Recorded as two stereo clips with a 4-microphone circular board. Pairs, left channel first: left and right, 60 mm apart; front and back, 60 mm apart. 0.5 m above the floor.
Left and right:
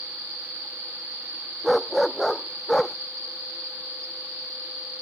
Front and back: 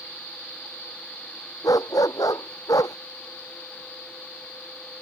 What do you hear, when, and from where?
1.6 s a dog barking: straight ahead; by 3.0 s 10° left